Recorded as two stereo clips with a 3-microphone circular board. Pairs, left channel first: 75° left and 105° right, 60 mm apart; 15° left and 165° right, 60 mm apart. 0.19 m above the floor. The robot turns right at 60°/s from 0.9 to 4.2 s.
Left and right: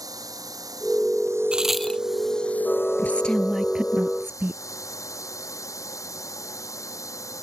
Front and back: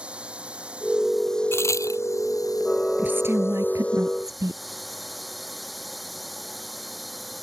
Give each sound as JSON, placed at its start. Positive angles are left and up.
{"t": 0.0, "sound": "a drone", "azimuth_deg": -90}
{"t": 1.5, "sound": "a crack", "azimuth_deg": -30}
{"t": 3.0, "sound": "a woman speaking", "azimuth_deg": 130}